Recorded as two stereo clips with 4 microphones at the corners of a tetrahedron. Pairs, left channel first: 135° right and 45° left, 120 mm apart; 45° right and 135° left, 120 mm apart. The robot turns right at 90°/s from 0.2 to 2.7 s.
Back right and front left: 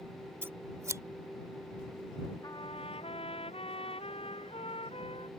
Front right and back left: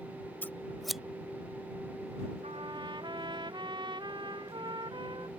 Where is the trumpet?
165° left; by 5.3 s 175° right.